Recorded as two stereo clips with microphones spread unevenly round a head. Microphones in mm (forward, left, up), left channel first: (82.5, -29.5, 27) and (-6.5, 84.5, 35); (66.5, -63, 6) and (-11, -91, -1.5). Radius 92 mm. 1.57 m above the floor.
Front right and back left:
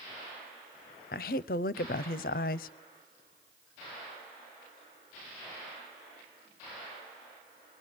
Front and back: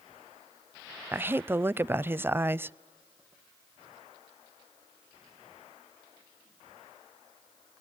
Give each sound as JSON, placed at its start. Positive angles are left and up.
{"t": 1.1, "sound": "a woman speaking", "azimuth_deg": -95, "distance_m": 0.5}